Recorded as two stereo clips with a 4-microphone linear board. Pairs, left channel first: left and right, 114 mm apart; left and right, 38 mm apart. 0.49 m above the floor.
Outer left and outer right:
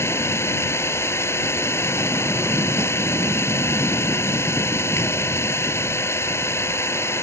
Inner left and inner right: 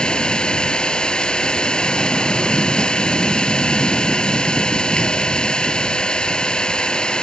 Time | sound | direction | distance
0.0 | an engine running | 25° left (ahead or behind) | ?